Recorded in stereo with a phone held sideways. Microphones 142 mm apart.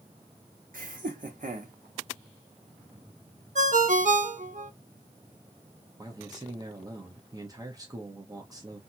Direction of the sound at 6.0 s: 25° right (ahead or behind).